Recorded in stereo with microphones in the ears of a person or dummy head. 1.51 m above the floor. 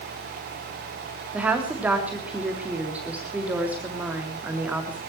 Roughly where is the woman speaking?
Centre.